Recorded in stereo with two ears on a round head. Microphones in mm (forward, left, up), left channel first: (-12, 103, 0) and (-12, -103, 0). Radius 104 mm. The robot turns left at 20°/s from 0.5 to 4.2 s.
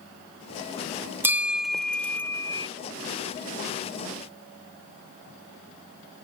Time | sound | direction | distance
1.2 | a bell | 10° right (ahead or behind) | ?